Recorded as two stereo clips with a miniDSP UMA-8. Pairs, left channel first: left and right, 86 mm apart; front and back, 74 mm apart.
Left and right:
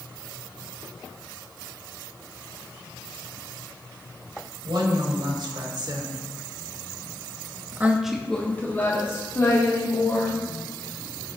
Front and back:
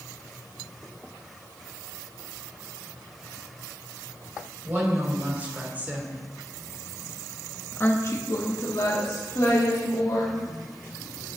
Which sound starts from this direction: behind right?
A woman speaking, at 4.7 s.